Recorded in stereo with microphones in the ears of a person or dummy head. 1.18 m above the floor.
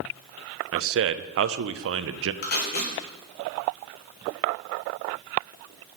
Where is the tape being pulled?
50° left (ahead or behind), 1.6 m.